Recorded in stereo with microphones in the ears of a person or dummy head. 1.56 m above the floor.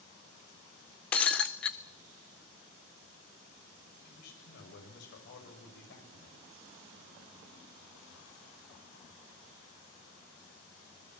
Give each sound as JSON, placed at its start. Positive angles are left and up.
{"t": 1.1, "sound": "breaking glass", "side_deg": 10, "distance_m": 0.6}
{"t": 4.0, "sound": "a man speaking", "side_deg": 65, "distance_m": 7.5}